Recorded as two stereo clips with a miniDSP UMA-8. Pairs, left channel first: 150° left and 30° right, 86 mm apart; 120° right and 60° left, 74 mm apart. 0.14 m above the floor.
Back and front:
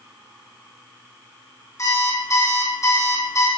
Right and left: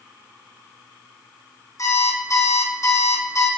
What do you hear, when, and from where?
1.8 s an alarm clock: 160° right, 4 m